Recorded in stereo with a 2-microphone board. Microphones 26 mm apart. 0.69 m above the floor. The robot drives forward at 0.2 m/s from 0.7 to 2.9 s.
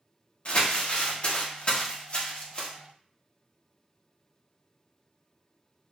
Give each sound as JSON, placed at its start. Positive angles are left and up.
{"t": 0.5, "sound": "crumpling", "side_deg": 50, "distance_m": 1.0}